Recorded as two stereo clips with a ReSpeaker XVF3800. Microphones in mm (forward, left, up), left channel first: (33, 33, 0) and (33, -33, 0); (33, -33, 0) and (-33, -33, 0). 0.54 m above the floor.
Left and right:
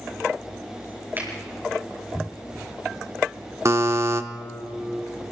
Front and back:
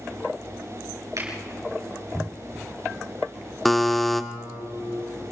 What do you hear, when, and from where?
1.2 s a finger snap: 145° right, 7 m
3.6 s a buzzer: 85° right, 1.0 m